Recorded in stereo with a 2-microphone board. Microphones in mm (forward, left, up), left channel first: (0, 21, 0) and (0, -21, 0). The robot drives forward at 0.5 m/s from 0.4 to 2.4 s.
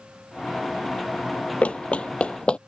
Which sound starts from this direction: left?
Running footsteps, at 1.6 s.